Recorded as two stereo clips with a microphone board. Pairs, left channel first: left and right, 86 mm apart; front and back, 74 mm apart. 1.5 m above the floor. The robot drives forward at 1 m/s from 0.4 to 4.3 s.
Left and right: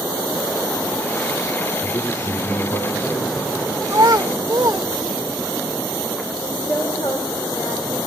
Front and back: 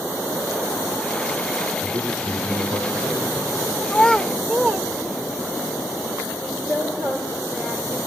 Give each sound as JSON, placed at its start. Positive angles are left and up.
{"t": 1.8, "sound": "a man speaking", "azimuth_deg": 135, "distance_m": 4.0}
{"t": 3.9, "sound": "a child speaking", "azimuth_deg": -60, "distance_m": 0.6}
{"t": 6.4, "sound": "a woman speaking", "azimuth_deg": 125, "distance_m": 6.0}